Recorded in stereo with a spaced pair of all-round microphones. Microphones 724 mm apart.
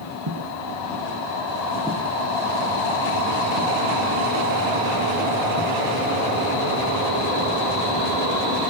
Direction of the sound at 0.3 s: 40° right (ahead or behind).